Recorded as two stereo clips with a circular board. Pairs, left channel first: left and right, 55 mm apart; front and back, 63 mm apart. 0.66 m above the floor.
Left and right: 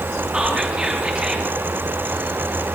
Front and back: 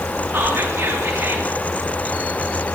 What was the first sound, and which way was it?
Whispering, 150° right.